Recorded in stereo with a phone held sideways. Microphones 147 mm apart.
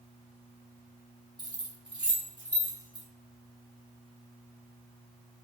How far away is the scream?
No scream in this recording.